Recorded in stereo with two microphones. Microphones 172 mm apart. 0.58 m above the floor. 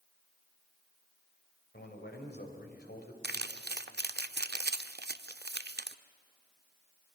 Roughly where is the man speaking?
Left.